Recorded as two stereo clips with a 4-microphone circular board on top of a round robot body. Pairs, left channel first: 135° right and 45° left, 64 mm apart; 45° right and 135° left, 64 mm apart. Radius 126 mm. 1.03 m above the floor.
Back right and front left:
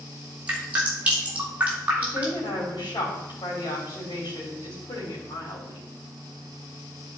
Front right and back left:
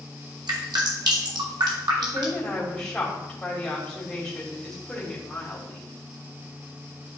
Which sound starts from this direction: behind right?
A woman speaking, at 2.0 s.